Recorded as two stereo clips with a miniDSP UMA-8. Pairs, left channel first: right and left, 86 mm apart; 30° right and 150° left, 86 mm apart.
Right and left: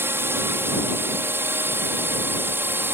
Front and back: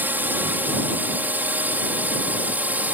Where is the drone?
110° left; by 2.9 s 105° left.